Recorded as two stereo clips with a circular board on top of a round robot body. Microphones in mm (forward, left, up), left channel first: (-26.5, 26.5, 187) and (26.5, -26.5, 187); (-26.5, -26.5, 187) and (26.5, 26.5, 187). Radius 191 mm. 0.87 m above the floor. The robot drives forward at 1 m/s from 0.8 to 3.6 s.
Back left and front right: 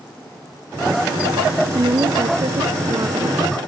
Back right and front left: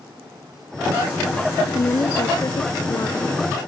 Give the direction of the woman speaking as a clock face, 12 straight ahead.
3 o'clock.